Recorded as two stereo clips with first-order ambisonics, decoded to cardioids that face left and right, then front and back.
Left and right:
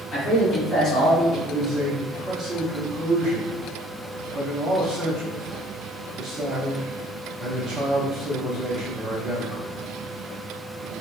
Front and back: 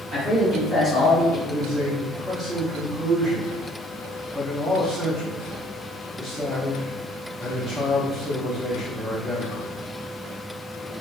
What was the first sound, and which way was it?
A man speaking, 45° left.